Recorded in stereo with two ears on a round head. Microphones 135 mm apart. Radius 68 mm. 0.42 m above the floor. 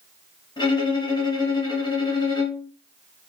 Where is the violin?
30° left (ahead or behind), 2.5 m.